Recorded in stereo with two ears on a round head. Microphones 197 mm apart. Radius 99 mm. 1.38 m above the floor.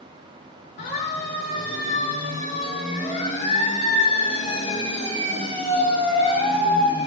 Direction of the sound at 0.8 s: 50° left (ahead or behind).